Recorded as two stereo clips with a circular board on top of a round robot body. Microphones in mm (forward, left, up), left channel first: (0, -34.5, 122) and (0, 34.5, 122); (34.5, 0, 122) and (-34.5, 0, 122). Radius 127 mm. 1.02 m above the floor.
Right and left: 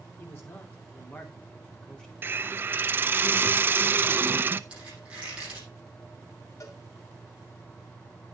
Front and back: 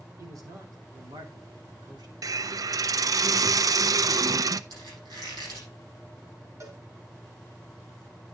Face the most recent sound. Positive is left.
turn(degrees=-135)